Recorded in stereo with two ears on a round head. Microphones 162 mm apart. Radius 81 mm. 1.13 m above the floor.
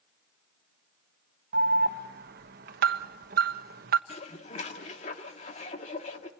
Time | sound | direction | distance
1.5 | an alarm | 55° right (ahead or behind) | 1.2 m
4.1 | dishes clattering | 40° left (ahead or behind) | 1.8 m